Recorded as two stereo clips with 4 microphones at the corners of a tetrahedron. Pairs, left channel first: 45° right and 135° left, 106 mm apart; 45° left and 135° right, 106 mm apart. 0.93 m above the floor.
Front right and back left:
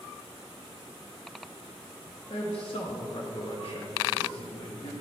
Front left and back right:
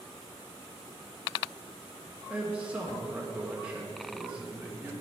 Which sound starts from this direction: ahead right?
A man speaking, at 2.3 s.